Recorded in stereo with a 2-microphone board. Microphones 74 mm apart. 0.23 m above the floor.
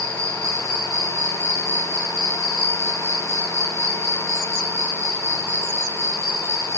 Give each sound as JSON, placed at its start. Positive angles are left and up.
{"t": 0.0, "sound": "an insect", "side_deg": -45, "distance_m": 4.0}